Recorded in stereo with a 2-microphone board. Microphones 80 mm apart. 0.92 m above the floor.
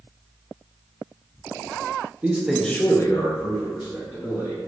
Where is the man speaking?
20° right (ahead or behind), 0.6 m; by 4.6 s 75° left (ahead or behind), 1.5 m.